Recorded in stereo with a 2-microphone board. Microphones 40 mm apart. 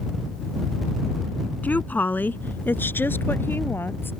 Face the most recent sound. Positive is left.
turn(degrees=60)  # may be behind; listen again after turning